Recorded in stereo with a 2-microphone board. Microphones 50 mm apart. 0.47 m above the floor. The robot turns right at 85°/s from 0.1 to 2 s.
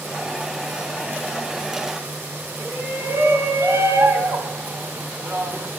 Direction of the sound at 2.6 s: 65° right (ahead or behind).